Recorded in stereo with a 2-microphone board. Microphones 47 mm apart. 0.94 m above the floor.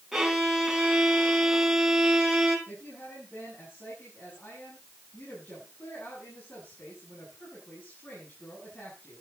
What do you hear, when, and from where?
0.1 s a violin: 5° right (ahead or behind), 4 m
2.7 s a woman speaking: 45° left (ahead or behind), 8.5 m